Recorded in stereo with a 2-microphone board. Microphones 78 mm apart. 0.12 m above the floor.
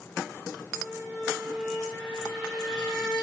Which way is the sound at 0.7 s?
Centre (ahead or behind).